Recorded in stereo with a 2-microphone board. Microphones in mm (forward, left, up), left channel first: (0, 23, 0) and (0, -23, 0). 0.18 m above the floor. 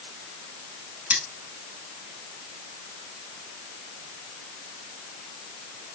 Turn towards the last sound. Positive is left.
turn(degrees=-35)  # may be behind; listen again after turning